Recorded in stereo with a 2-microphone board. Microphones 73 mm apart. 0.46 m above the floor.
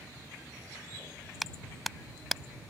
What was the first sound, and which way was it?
A clap, centre (ahead or behind).